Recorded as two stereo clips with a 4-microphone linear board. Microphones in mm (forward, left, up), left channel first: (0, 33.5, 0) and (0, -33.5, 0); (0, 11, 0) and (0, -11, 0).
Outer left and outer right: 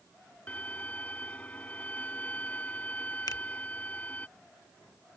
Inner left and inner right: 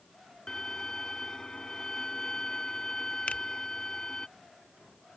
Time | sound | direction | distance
0.5 | a violin | 20° left (ahead or behind) | ?
3.3 | a finger snap | 70° left (ahead or behind) | ?